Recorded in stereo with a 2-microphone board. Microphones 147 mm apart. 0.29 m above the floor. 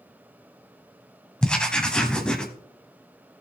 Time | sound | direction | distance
1.4 | writing | 5° left (ahead or behind) | 1.2 m